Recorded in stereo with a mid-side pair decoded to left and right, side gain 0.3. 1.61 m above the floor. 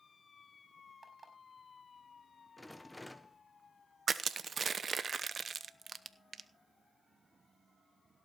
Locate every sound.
1.0 s an alarm clock: 35° right, 5.5 m
2.6 s a rattle: 10° left, 1.5 m
4.1 s crushing: 60° right, 0.9 m